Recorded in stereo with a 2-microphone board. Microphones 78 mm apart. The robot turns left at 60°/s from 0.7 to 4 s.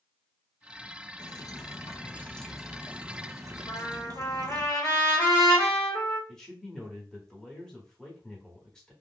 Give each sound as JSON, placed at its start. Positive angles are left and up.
{"t": 1.2, "sound": "dripping", "azimuth_deg": 80, "distance_m": 0.5}
{"t": 3.7, "sound": "a trumpet", "side_deg": 45, "distance_m": 1.9}
{"t": 6.3, "sound": "a man speaking", "side_deg": 10, "distance_m": 1.0}